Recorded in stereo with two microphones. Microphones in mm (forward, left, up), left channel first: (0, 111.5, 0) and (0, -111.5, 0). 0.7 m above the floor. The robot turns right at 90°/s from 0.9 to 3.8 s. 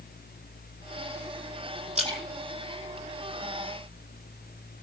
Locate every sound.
1.9 s a splash: 30° right (ahead or behind), 8 m; by 3.7 s 50° left (ahead or behind), 8 m